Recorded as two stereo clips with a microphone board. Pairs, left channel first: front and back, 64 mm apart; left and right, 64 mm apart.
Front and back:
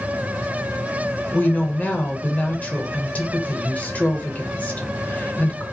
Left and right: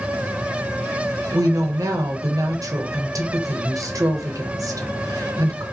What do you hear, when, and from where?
1.3 s a woman speaking: 65° right, 0.7 m